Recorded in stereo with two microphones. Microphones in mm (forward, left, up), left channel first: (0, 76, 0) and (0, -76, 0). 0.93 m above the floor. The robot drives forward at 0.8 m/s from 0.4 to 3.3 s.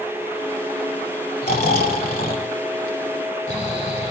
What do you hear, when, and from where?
1.4 s snoring: 80° left, 2.5 m; by 4.1 s 55° left (ahead or behind), 2.5 m